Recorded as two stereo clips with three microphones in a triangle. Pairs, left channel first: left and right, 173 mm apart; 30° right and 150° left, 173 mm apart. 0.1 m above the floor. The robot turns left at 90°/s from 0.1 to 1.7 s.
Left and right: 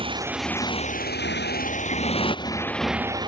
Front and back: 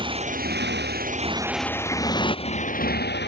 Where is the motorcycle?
150° right; by 3.3 s 25° right.